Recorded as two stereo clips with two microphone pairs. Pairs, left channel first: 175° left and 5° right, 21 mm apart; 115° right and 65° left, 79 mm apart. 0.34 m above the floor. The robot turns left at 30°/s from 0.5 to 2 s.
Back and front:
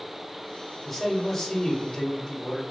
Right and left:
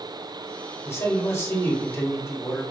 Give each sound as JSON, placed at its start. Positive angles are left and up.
{"t": 0.8, "sound": "a man speaking", "azimuth_deg": -100, "distance_m": 1.3}